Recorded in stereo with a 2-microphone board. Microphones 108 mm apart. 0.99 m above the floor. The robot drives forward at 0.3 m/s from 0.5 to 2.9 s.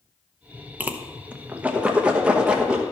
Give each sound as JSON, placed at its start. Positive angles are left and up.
{"t": 0.8, "sound": "a whoosh", "side_deg": -15, "distance_m": 0.7}